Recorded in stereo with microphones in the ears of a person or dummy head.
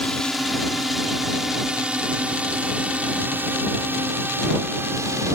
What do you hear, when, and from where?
0.0 s a drone: centre (ahead or behind); by 5.4 s 15° right (ahead or behind)